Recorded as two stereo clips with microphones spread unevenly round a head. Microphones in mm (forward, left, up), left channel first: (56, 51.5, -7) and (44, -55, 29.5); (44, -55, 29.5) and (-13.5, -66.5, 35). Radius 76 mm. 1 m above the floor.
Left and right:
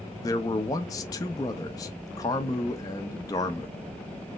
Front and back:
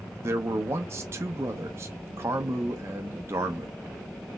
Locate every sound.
0.2 s a man speaking: 135° left, 0.6 m